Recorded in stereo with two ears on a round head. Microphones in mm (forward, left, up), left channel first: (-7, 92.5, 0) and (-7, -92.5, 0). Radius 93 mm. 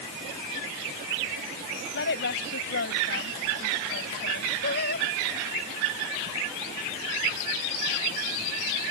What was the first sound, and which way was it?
A woman speaking, 55° left (ahead or behind).